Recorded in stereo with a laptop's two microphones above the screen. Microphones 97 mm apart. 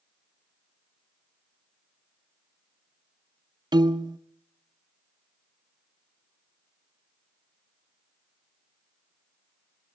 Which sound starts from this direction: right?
A piano, at 3.7 s.